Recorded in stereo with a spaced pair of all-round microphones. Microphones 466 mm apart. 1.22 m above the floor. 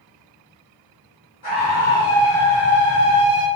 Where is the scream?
50° left (ahead or behind), 1.2 m; by 3.5 s 30° left (ahead or behind), 1.3 m.